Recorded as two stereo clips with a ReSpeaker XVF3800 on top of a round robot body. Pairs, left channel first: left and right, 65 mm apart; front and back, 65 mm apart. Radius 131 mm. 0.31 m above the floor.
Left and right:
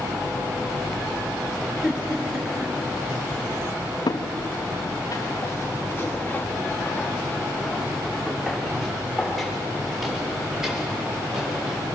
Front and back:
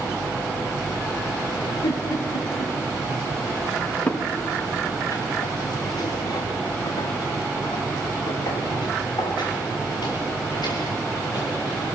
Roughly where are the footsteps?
Left.